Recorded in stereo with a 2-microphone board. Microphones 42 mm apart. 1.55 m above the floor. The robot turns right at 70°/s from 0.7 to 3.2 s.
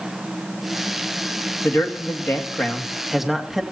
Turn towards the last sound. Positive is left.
turn(degrees=-175)